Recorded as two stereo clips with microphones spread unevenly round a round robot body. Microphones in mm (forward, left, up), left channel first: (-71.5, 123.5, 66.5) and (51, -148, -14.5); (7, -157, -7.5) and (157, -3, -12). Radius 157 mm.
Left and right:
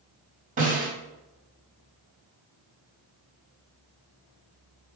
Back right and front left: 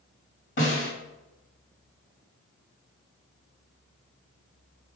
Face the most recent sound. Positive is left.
turn(degrees=-115)